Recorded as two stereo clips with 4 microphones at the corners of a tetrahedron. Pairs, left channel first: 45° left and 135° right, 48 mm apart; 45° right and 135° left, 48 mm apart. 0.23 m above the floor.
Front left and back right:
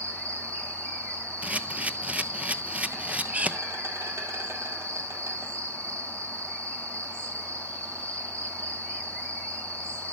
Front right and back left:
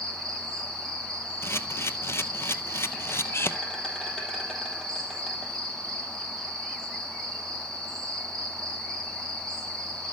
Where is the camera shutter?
75° right, 0.8 m.